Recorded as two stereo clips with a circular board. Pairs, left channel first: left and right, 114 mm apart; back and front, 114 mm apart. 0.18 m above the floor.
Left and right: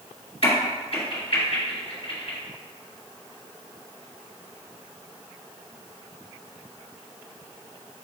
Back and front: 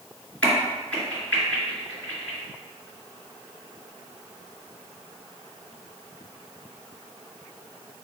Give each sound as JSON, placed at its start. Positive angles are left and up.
{"t": 0.4, "sound": "a crack", "azimuth_deg": 105, "distance_m": 3.0}